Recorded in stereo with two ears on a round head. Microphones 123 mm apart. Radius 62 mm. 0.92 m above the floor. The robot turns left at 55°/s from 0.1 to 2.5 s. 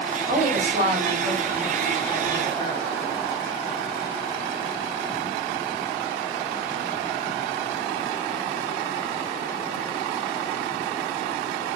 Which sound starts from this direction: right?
A woman speaking, at 0.3 s.